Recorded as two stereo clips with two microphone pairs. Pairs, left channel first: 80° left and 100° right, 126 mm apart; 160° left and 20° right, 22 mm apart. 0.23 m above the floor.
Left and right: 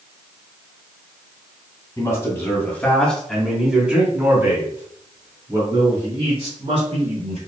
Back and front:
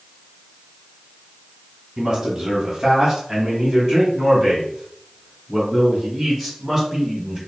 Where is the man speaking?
40° left, 2.0 m; by 7.4 s 105° right, 3 m.